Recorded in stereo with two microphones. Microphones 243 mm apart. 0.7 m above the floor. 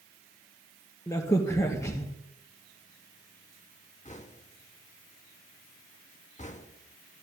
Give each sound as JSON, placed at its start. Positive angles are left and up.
{"t": 1.1, "sound": "a crack", "side_deg": 15, "distance_m": 2.5}
{"t": 4.0, "sound": "knocking", "side_deg": 30, "distance_m": 1.1}